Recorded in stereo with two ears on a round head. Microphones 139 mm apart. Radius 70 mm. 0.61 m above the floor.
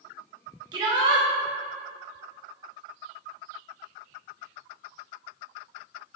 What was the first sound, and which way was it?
A shout, 30° right (ahead or behind).